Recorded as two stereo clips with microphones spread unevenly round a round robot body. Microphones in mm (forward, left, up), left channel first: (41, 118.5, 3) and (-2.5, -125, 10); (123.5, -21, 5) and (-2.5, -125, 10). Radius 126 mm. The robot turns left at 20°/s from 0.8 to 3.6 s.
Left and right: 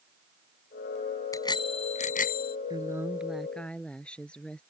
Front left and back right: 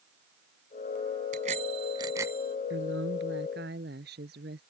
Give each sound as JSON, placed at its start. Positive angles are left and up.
{"t": 1.3, "sound": "a bicycle bell", "azimuth_deg": 160}
{"t": 2.7, "sound": "a woman speaking", "azimuth_deg": -175}